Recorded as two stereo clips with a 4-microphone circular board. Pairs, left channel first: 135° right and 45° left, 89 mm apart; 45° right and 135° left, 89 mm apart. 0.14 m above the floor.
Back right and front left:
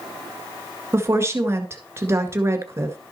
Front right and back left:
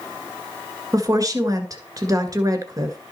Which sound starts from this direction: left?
A woman speaking, at 0.9 s.